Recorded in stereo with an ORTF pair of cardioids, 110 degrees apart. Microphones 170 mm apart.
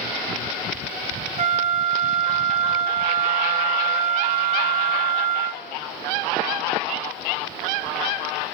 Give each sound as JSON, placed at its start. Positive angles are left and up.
{"t": 1.4, "sound": "a flute", "azimuth_deg": -40, "distance_m": 0.7}